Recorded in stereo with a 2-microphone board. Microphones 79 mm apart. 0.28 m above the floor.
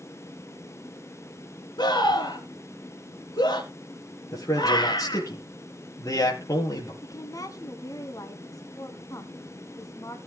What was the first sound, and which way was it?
A scream, 70° left (ahead or behind).